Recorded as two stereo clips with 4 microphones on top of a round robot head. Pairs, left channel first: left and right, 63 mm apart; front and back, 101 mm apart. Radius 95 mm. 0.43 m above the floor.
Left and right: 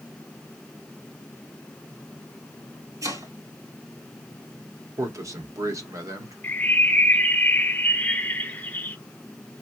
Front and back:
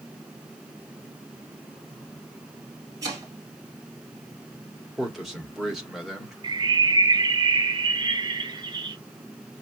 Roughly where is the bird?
Behind left.